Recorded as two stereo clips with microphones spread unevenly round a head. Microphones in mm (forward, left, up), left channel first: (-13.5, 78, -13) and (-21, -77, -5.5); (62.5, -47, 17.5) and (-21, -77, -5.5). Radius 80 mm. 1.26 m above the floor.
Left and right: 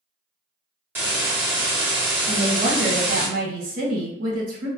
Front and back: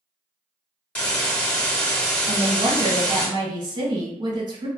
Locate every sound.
0.9 s a hiss: 30° right, 1.1 m
2.3 s a woman speaking: 130° right, 1.3 m